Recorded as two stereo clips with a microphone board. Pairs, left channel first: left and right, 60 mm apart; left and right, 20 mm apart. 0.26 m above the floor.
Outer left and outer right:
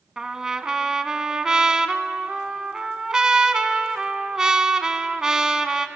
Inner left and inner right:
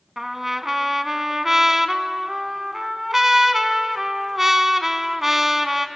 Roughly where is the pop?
I don't hear a pop.